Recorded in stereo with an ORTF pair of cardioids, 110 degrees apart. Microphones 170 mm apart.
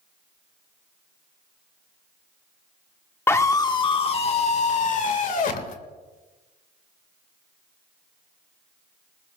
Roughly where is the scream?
Ahead.